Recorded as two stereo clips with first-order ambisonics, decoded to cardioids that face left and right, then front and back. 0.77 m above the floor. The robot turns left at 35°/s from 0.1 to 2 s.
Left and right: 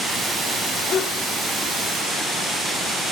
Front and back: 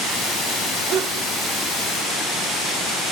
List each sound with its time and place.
0.9 s a sneeze: 145° left, 1.8 m; by 1.3 s 130° left, 1.8 m